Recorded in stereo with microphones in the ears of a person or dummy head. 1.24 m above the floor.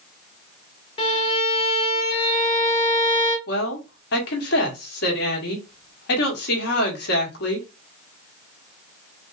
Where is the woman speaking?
60° left (ahead or behind), 1.4 m.